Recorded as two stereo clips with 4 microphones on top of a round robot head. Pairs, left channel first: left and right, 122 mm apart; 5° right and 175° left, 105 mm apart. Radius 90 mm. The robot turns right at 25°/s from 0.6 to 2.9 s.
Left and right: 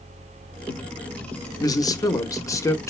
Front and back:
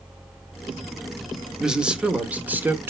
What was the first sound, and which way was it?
A man speaking, 95° left.